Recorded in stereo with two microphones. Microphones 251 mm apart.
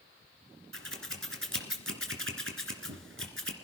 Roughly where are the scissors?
Right.